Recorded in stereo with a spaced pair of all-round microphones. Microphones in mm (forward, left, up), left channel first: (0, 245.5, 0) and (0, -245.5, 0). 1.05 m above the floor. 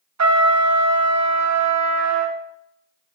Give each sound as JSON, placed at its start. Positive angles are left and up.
{"t": 0.2, "sound": "a trumpet", "side_deg": -35, "distance_m": 0.7}